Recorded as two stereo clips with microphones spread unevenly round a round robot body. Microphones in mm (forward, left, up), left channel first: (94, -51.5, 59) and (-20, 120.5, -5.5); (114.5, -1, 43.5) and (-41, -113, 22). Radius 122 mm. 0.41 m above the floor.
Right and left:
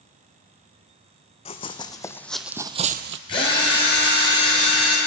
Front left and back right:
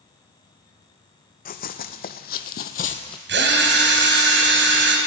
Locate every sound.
1.4 s running footsteps: straight ahead, 1.1 m; by 3.2 s 95° left, 0.5 m
3.3 s a drill: 130° right, 2 m